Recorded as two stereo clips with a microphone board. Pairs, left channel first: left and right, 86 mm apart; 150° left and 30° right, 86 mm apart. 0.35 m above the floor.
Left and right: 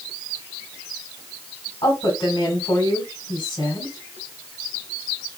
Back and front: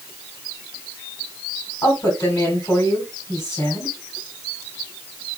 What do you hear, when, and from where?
1.8 s a woman speaking: 105° left, 3.5 m